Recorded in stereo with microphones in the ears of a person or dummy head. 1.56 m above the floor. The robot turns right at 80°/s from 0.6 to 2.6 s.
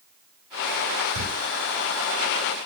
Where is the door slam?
75° right (ahead or behind), 5.5 m; by 1.3 s 80° right, 5.5 m.